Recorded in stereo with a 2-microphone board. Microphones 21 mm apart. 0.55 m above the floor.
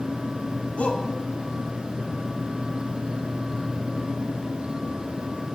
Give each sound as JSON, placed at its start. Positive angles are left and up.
{"t": 0.8, "sound": "a shout", "side_deg": 80, "distance_m": 4.5}